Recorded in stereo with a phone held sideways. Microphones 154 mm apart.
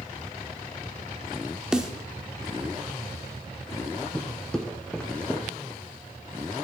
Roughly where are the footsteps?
Centre.